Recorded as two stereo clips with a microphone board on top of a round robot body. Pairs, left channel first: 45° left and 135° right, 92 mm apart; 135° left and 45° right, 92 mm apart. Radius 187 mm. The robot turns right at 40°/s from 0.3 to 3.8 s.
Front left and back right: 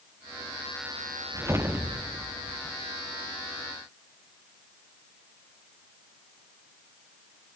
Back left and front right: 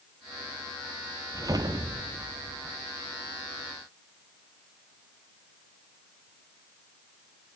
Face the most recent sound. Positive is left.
turn(degrees=10)